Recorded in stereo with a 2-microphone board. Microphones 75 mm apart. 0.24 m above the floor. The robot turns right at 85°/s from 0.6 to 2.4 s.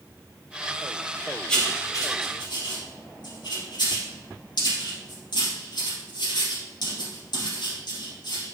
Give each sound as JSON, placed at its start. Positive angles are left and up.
{"t": 1.5, "sound": "writing", "side_deg": 10, "distance_m": 2.5}